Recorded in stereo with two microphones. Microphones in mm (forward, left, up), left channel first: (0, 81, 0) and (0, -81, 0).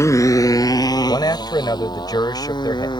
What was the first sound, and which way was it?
A motorcycle, 20° left (ahead or behind).